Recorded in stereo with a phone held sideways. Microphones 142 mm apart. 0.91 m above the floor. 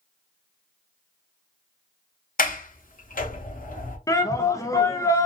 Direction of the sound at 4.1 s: 25° left (ahead or behind).